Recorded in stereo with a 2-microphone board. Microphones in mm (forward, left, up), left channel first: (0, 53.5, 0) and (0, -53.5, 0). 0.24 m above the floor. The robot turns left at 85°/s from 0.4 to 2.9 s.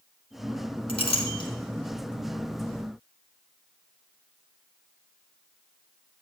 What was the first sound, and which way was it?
A clink, 65° left (ahead or behind).